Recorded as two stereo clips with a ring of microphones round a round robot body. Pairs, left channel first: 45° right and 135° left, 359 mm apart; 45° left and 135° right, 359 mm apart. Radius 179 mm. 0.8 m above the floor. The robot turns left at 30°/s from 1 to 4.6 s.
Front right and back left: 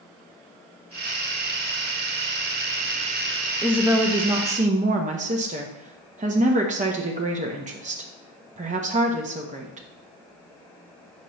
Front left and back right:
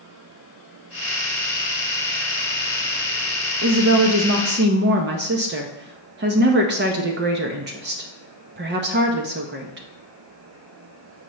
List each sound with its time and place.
3.6 s a woman speaking: 140° right, 0.7 m; by 9.8 s 170° right, 0.7 m